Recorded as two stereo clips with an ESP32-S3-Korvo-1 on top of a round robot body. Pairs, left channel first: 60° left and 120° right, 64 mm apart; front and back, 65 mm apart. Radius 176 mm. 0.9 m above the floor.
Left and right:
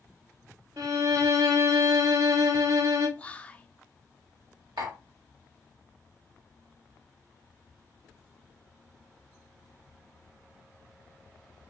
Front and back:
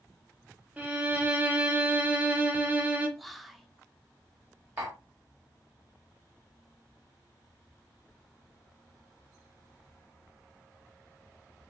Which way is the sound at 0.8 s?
115° right.